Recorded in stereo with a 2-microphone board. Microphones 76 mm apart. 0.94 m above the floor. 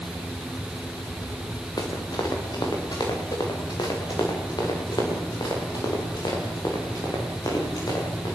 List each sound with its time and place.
1.8 s running footsteps: 60° left (ahead or behind), 6 m